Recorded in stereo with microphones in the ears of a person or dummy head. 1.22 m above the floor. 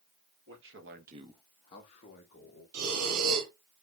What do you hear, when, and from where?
0.5 s a man speaking: 60° right (ahead or behind), 1.3 m; by 2.6 s 45° left (ahead or behind), 2 m
2.7 s breathing: 85° right, 1.9 m